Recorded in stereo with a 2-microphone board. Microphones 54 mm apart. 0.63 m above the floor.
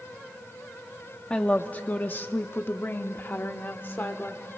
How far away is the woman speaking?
About 0.7 m.